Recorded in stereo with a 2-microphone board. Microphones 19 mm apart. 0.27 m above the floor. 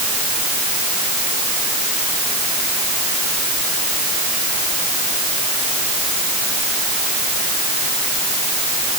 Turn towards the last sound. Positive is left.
No sound to turn to.